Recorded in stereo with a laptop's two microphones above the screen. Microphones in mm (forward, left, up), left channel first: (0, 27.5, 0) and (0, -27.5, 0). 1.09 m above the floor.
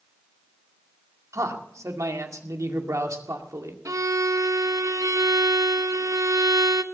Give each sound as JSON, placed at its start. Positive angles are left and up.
{"t": 1.3, "sound": "a man speaking", "side_deg": -70, "distance_m": 2.0}
{"t": 3.9, "sound": "a violin", "side_deg": -85, "distance_m": 0.7}